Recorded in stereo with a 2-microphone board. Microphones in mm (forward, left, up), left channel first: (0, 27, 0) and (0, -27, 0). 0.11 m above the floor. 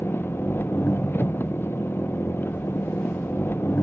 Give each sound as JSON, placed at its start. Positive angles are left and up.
{"t": 0.0, "sound": "an engine running", "side_deg": 45}